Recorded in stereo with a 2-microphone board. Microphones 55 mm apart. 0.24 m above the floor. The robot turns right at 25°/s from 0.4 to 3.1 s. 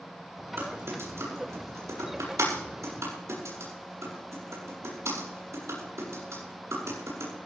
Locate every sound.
0.6 s typing on a keyboard: 45° right (ahead or behind), 8 m; by 7.3 s 65° right (ahead or behind), 8 m